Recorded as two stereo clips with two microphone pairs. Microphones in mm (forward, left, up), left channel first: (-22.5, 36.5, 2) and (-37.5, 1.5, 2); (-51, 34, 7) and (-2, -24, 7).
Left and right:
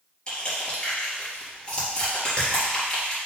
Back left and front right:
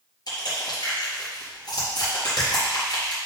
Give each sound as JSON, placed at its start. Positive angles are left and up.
{"t": 0.3, "sound": "crushing", "azimuth_deg": 130, "distance_m": 4.0}